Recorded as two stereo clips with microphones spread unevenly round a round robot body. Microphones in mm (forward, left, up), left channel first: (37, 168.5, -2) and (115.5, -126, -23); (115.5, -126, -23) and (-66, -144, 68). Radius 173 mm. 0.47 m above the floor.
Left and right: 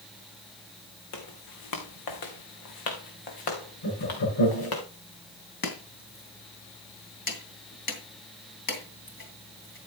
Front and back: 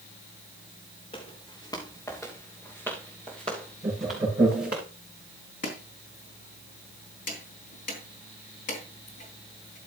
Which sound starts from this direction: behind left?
Laughter, at 3.8 s.